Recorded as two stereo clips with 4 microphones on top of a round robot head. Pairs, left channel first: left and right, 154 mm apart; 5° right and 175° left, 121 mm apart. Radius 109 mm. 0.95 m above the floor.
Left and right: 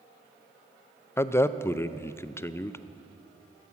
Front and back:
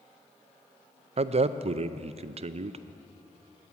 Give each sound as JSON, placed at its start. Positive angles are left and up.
{"t": 1.2, "sound": "a man speaking", "azimuth_deg": 160, "distance_m": 0.5}